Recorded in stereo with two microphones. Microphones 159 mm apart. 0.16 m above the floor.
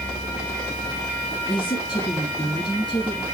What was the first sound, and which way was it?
A woman speaking, 25° left (ahead or behind).